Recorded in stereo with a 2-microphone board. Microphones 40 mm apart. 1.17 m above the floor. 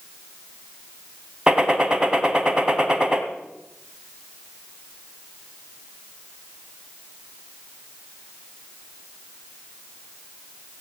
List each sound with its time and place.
1.5 s a gunshot: 20° right (ahead or behind), 1.8 m